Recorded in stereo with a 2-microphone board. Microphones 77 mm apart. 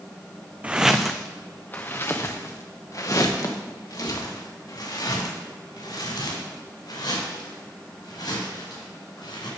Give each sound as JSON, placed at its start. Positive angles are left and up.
{"t": 0.6, "sound": "footsteps", "side_deg": -15, "distance_m": 0.7}